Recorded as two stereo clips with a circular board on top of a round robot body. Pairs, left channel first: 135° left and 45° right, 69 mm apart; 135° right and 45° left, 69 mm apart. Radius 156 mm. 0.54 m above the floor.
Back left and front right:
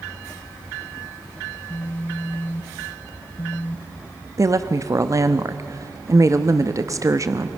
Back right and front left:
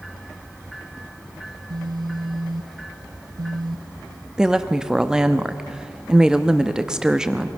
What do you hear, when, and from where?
1.5 s a phone buzzing: 70° left, 0.6 m
4.4 s a woman speaking: 35° right, 1.0 m